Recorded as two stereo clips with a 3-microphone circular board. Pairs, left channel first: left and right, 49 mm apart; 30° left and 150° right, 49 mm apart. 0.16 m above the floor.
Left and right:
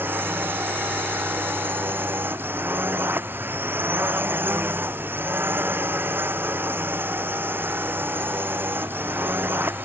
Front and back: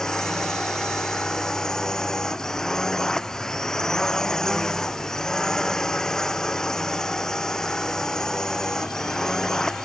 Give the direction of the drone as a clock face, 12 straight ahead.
2 o'clock.